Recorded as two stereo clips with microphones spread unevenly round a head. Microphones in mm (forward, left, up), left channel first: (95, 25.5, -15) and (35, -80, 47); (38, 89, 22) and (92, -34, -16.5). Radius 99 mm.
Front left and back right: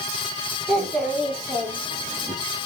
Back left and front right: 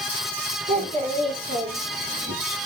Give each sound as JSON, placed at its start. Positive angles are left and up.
{"t": 0.7, "sound": "a child speaking", "azimuth_deg": -40, "distance_m": 3.5}